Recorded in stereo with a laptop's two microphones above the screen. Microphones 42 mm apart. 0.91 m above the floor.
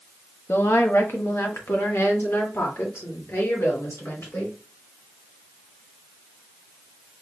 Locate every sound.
0.5 s a woman speaking: 60° left (ahead or behind), 0.8 m; by 4.6 s 75° left (ahead or behind), 3 m